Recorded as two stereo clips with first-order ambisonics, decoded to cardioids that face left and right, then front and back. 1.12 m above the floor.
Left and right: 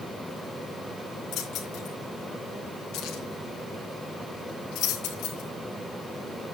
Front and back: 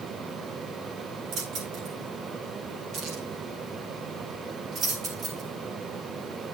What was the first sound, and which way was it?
Keys jangling, 135° left.